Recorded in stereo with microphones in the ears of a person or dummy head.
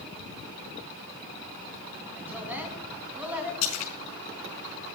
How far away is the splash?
About 4 m.